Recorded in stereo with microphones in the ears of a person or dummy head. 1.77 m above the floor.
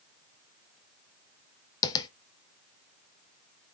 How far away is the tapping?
About 1.1 m.